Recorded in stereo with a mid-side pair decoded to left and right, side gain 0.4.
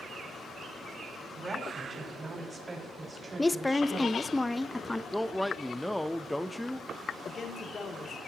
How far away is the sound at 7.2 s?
About 2.5 m.